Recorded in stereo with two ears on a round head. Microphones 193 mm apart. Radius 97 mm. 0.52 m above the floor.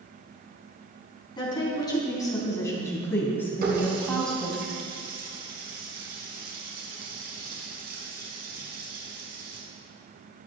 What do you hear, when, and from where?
1.4 s a woman speaking: 20° left (ahead or behind), 4 m; by 4.6 s centre (ahead or behind), 3 m
3.6 s a running tap: 45° right (ahead or behind), 3.5 m